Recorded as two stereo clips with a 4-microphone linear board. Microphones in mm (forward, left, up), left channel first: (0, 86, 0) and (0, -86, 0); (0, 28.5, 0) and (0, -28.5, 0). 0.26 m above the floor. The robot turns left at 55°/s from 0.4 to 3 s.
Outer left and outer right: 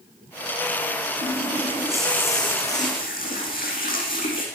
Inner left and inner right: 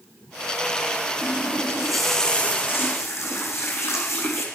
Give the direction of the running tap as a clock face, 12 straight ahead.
5 o'clock.